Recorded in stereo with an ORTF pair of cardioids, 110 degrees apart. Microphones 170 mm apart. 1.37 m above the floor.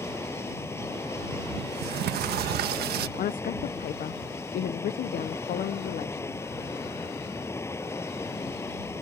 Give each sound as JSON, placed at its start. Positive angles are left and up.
{"t": 0.0, "sound": "running water", "azimuth_deg": 15}
{"t": 1.6, "sound": "a sliding door", "azimuth_deg": -70}
{"t": 3.2, "sound": "a woman speaking", "azimuth_deg": 60}